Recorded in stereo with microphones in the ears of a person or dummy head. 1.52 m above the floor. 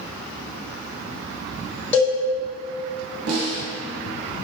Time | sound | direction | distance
1.9 | a cowbell | 5° left (ahead or behind) | 1.6 m
3.3 | a snare drum | 85° right | 1.8 m